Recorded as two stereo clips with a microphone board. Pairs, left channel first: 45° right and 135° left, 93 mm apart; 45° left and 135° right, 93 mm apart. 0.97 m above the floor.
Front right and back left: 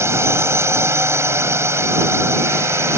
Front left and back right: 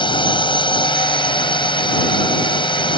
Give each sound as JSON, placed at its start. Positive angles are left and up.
{"t": 0.0, "sound": "a drone", "azimuth_deg": 75}